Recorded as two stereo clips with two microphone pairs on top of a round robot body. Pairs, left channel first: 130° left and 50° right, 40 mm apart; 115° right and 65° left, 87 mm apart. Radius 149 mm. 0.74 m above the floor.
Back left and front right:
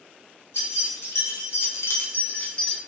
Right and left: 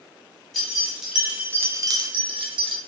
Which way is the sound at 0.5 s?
155° left.